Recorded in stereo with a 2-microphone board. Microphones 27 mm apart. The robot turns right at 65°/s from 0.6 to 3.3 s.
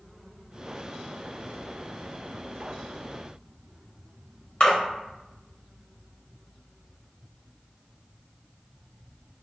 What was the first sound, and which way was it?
A splash, 45° left (ahead or behind).